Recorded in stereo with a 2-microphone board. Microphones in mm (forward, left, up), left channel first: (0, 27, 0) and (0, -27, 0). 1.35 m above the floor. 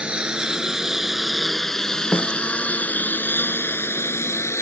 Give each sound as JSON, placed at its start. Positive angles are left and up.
{"t": 0.0, "sound": "a lawn mower", "side_deg": -20}
{"t": 2.1, "sound": "a snare drum", "side_deg": 40}